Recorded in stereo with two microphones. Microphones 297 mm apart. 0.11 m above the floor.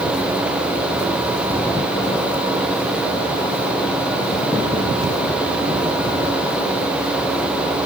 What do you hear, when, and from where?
Only background noise.